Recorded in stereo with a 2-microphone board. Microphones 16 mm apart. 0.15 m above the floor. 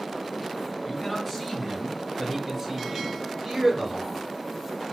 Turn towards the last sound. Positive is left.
turn(degrees=-20)  # may be behind; listen again after turning